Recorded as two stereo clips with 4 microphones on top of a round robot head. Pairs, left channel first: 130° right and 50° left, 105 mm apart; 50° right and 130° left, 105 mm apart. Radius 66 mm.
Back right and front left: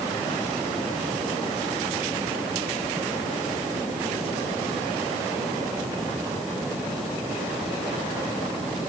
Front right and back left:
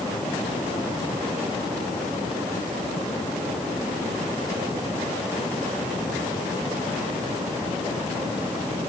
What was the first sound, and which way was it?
Only background noise.